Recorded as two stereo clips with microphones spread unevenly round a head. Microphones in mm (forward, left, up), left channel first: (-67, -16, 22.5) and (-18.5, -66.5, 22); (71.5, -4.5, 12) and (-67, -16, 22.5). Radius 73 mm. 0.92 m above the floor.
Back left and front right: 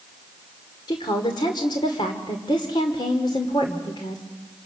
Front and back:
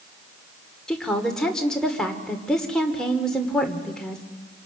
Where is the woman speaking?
90° left, 2 m.